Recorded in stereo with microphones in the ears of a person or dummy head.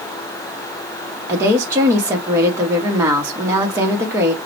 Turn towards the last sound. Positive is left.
turn(degrees=-15)  # may be behind; listen again after turning